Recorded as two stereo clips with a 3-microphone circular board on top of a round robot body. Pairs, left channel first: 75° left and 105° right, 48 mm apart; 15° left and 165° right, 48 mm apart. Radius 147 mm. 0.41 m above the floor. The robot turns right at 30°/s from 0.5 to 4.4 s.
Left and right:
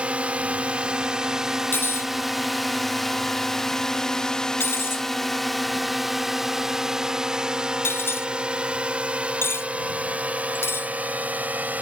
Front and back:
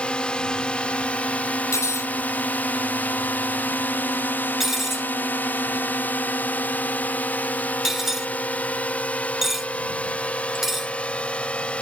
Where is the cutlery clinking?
30° left; by 10.9 s 110° left.